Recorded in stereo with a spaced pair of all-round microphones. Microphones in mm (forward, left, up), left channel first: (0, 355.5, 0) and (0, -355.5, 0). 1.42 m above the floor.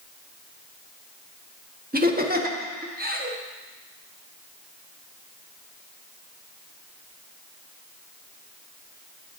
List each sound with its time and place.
1.9 s laughter: 15° right (ahead or behind), 0.8 m